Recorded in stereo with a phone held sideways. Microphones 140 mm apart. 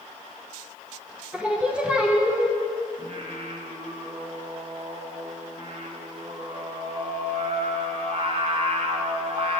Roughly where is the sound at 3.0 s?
Right.